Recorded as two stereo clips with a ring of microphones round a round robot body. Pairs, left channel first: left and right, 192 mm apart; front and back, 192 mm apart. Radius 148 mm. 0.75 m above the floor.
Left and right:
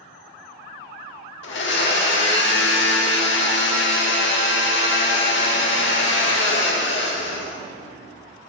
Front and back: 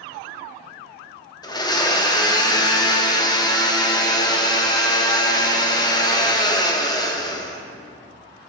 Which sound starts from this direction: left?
A blender, at 1.4 s.